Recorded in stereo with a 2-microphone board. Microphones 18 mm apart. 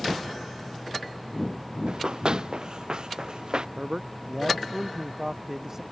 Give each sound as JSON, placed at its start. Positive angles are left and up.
{"t": 1.9, "sound": "running footsteps", "side_deg": -50}
{"t": 3.8, "sound": "a man speaking", "side_deg": -35}